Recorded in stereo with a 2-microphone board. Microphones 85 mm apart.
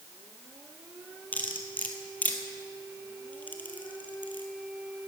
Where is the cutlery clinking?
20° left (ahead or behind), 1.8 m.